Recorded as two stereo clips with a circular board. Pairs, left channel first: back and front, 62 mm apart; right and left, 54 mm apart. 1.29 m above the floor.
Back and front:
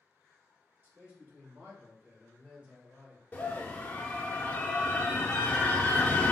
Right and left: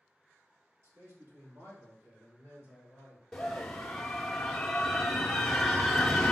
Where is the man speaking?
60° left, 1.8 m; by 3.2 s 75° left, 4 m.